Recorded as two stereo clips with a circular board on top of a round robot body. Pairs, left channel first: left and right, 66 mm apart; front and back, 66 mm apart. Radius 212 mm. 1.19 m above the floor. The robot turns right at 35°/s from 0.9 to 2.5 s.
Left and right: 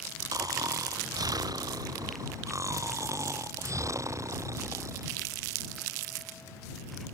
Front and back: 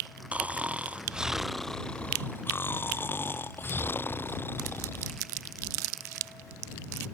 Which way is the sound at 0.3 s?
110° right.